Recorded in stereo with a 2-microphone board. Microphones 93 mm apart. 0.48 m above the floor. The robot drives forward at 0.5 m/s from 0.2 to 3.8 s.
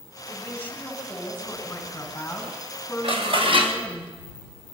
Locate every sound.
0.3 s a woman speaking: 25° left (ahead or behind), 4 m; by 4.0 s 15° left (ahead or behind), 6 m
3.0 s dishes clattering: 75° right (ahead or behind), 2.5 m; by 3.8 s 65° right (ahead or behind), 2.5 m